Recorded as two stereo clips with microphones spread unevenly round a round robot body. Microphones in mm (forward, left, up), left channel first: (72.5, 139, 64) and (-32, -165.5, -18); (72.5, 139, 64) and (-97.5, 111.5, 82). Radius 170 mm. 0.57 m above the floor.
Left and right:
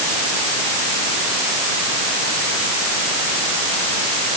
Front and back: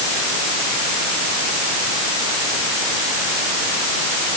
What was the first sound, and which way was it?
Only background noise.